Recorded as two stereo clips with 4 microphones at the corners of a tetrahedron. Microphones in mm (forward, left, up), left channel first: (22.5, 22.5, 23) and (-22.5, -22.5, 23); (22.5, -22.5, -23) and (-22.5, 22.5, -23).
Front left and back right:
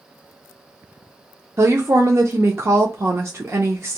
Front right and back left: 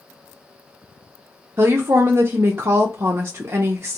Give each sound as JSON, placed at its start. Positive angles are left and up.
{"t": 1.6, "sound": "a woman speaking", "azimuth_deg": 180, "distance_m": 0.5}